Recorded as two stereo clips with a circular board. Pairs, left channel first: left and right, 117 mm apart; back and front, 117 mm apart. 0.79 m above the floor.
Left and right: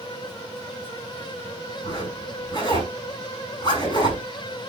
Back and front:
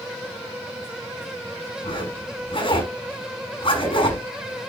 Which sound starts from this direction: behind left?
A zipper, at 1.8 s.